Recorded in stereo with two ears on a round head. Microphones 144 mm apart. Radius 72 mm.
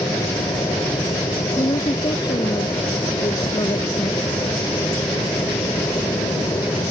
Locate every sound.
0.0 s an aircraft: 15° left (ahead or behind)
1.6 s a woman speaking: 25° left (ahead or behind)